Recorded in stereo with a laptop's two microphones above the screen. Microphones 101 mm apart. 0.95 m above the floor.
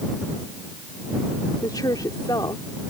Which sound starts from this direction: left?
A woman speaking, at 1.6 s.